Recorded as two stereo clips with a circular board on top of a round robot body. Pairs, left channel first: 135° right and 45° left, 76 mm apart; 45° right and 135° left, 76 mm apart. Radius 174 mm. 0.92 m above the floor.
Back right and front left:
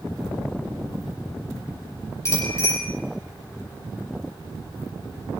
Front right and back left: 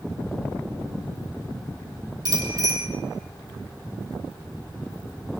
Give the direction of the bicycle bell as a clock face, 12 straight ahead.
6 o'clock.